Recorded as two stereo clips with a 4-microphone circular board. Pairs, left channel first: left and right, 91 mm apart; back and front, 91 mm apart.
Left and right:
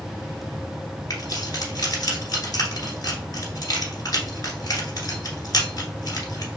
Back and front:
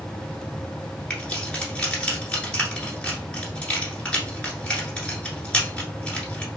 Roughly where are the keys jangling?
Left.